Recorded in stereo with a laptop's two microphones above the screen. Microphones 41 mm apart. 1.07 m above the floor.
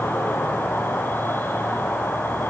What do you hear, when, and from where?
0.0 s an insect: 60° left (ahead or behind), 8.5 m